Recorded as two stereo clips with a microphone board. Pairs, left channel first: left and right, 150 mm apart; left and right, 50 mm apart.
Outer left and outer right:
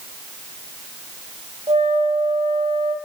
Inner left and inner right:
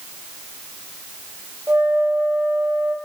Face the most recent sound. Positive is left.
turn(degrees=-40)  # may be behind; listen again after turning